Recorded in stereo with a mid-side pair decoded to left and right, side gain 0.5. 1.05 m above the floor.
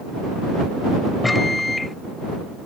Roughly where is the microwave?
Ahead.